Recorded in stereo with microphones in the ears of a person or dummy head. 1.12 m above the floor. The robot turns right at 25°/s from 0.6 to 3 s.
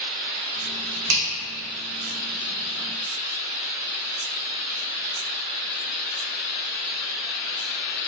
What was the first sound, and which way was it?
A finger snap, 70° right (ahead or behind).